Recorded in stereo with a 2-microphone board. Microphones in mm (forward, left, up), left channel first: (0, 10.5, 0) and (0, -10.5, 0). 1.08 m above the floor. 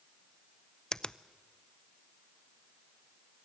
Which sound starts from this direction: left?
A finger snap, at 0.9 s.